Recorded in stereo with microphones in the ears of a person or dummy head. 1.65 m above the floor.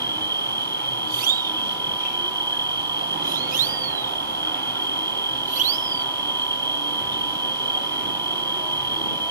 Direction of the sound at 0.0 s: 15° right (ahead or behind).